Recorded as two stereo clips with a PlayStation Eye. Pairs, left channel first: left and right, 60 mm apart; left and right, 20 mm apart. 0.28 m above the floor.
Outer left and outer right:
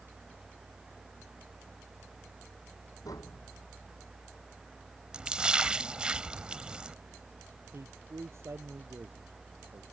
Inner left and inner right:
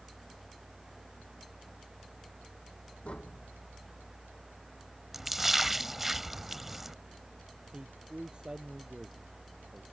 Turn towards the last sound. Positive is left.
turn(degrees=-50)  # may be behind; listen again after turning